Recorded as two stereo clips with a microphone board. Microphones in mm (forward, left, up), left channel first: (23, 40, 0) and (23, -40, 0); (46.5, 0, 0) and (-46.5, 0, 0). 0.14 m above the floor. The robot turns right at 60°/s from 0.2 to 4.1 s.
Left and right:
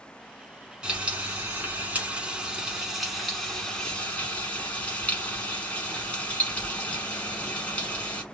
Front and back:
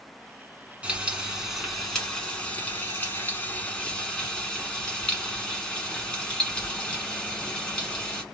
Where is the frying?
140° right, 1.2 m; by 8.2 s 55° left, 1.2 m.